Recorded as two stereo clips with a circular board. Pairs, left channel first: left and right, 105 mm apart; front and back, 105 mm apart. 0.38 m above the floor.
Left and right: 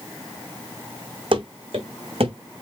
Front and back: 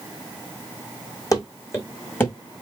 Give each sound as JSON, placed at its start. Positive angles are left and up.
{"t": 1.3, "sound": "running footsteps", "azimuth_deg": -55, "distance_m": 1.3}